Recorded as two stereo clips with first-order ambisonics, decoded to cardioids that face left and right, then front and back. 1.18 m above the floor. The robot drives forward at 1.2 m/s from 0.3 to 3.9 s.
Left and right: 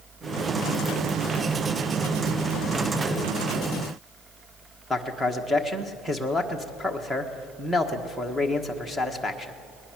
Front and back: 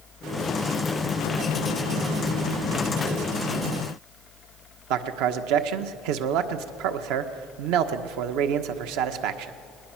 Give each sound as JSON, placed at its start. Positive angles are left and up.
{"t": 4.9, "sound": "a man speaking", "azimuth_deg": 180, "distance_m": 1.4}